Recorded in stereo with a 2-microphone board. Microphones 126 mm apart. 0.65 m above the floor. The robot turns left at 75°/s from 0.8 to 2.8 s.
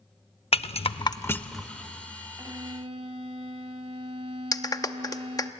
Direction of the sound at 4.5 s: 30° left (ahead or behind).